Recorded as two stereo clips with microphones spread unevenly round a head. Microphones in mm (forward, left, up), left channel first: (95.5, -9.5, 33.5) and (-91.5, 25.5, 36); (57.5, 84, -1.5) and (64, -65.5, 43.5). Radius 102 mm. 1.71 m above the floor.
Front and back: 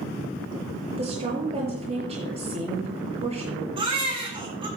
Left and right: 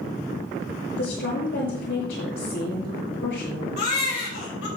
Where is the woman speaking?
110° left, 7.5 m.